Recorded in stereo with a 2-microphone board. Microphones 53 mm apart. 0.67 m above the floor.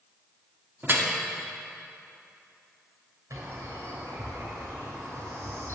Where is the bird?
75° right (ahead or behind), 3 m.